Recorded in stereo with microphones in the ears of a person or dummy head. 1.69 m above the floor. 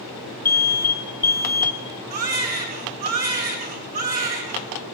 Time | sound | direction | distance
0.5 | an alarm | 10° left (ahead or behind) | 3 m
2.1 | a baby crying | 40° right (ahead or behind) | 6.5 m